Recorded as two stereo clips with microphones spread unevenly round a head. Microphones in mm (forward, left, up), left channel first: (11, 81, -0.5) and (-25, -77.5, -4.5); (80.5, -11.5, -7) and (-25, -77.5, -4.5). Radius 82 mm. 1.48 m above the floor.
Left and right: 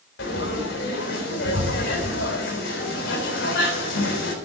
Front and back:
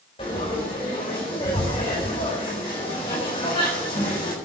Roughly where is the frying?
Left.